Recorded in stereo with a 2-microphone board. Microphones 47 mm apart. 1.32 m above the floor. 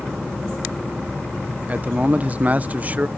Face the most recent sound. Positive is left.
turn(degrees=-30)  # may be behind; listen again after turning